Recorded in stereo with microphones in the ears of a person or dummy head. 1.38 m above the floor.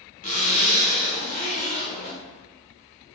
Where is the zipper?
45° left (ahead or behind), 0.8 m.